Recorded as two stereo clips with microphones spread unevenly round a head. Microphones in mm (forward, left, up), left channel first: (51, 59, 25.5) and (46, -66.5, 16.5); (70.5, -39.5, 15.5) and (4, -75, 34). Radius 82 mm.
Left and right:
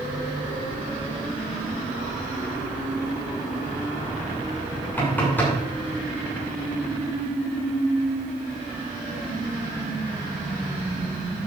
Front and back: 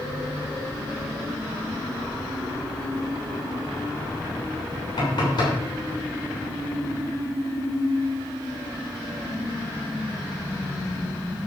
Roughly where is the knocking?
Ahead.